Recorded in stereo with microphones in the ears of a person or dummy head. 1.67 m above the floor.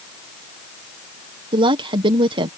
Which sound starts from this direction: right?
A woman speaking, at 1.5 s.